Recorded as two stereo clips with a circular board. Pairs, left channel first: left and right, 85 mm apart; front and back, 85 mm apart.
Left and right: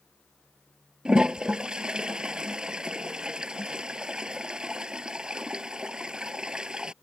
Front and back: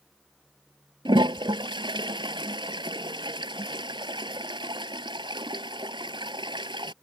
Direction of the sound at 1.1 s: 170° right.